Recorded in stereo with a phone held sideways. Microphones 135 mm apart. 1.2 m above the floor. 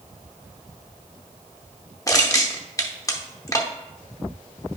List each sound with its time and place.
2.1 s crushing: 25° left (ahead or behind), 0.8 m